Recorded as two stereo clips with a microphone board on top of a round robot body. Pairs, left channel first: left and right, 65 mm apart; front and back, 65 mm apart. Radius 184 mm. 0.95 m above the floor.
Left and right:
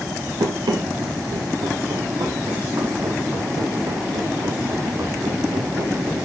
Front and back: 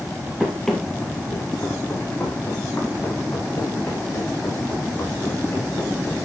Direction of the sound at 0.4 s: 95° right.